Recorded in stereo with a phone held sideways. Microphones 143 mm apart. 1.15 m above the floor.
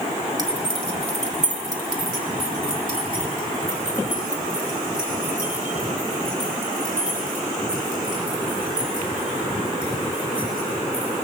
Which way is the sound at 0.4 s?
30° right (ahead or behind).